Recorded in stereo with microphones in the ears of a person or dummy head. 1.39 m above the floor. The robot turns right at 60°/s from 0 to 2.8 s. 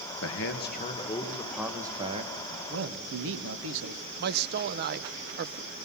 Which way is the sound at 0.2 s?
105° left.